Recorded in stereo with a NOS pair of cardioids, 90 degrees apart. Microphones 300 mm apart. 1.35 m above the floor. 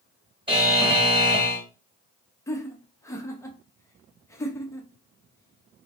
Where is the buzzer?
15° right, 1.5 m.